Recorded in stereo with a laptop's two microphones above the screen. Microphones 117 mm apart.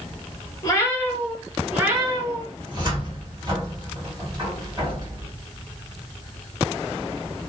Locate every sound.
0.6 s a cat meowing: 30° left (ahead or behind), 0.8 m; by 2.5 s 40° right (ahead or behind), 1.0 m
2.6 s a cupboard door: 35° right (ahead or behind), 1.6 m